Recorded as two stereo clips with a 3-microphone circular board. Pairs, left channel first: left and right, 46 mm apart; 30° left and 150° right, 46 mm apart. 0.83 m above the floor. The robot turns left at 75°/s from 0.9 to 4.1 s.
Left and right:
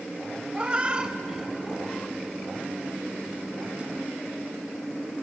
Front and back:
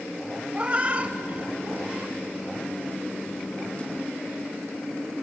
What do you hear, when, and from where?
0.5 s a cat meowing: 130° right, 0.7 m; by 2.2 s 140° left, 0.7 m